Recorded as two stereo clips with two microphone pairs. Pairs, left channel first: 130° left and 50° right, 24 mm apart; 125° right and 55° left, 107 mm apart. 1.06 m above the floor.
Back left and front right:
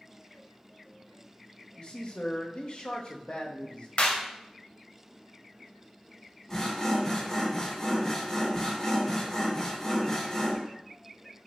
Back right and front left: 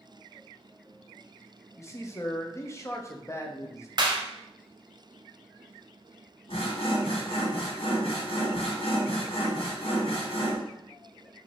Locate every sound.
1.8 s a man speaking: 175° left, 0.7 m
4.0 s a clap: 105° left, 0.8 m
6.5 s sawing: 155° right, 1.3 m